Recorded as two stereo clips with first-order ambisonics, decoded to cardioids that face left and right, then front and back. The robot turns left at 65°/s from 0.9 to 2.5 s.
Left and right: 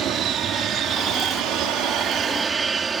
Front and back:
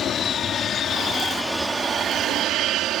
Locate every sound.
0.0 s an aircraft: 50° right; by 3.0 s 155° right